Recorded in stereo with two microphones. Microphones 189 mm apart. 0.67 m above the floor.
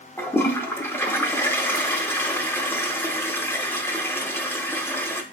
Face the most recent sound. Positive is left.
turn(degrees=10)  # may be behind; listen again after turning